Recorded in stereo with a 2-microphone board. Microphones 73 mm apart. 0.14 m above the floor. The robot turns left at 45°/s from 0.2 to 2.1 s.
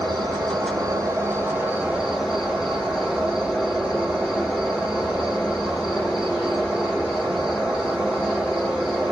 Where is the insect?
90° right, 1.2 m; by 9.1 s 175° right, 1.2 m.